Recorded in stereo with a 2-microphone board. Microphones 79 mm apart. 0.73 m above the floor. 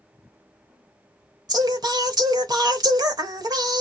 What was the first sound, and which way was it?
Singing, 55° right (ahead or behind).